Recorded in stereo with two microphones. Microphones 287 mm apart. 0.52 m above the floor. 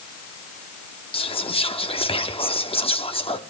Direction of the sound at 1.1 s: 20° left (ahead or behind).